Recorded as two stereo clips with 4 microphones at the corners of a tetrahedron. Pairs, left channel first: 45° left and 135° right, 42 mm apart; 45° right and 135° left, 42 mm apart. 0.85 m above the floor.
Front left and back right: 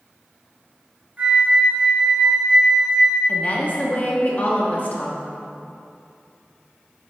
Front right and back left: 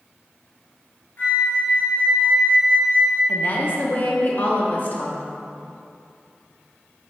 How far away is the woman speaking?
About 1.1 m.